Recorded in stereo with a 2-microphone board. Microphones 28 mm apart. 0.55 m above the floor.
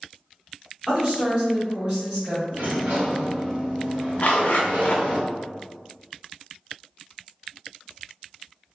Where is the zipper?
65° left (ahead or behind), 0.5 m.